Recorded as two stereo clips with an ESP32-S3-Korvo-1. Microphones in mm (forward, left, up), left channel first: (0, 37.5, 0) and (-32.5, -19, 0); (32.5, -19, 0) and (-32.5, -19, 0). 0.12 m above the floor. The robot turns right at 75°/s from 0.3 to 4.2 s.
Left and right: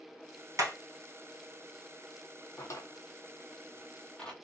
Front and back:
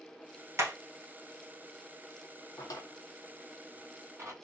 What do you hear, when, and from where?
0.6 s hammering: 140° right, 1.4 m; by 0.7 s 130° right, 1.4 m
2.6 s a drawer: 15° left, 0.8 m; by 4.3 s 140° left, 0.8 m